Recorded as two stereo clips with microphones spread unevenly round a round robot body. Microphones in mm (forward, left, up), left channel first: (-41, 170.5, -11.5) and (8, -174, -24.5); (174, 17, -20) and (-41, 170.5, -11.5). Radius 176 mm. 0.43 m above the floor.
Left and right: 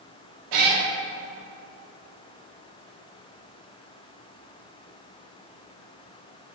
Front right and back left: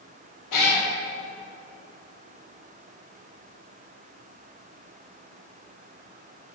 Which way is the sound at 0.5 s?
55° right.